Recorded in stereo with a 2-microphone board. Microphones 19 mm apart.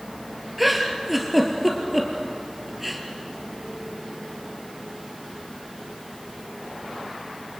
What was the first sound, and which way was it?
A giggle, 10° right (ahead or behind).